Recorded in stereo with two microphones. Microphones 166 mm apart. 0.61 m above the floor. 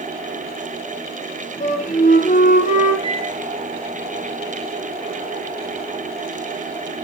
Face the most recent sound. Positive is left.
turn(degrees=-30)  # may be behind; listen again after turning